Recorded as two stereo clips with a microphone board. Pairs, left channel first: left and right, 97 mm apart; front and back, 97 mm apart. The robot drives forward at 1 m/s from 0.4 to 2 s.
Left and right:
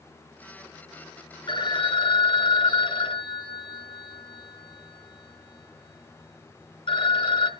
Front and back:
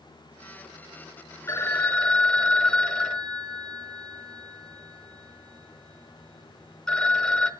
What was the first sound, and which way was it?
A phone ringing, 60° left.